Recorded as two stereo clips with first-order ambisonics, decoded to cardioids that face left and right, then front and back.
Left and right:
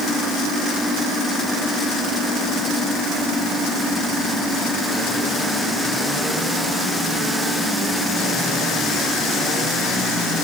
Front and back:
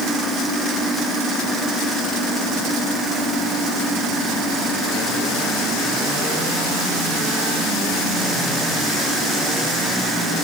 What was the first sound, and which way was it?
Only background noise.